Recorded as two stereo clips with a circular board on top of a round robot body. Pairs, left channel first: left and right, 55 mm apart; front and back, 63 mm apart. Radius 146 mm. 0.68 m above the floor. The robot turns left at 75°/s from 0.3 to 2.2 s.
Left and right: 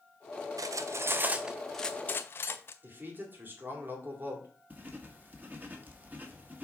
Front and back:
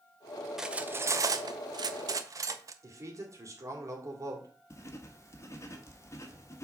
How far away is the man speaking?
About 2.5 m.